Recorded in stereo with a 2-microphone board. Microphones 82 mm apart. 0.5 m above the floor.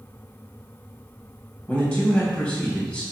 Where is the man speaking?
15° left (ahead or behind), 2.5 m.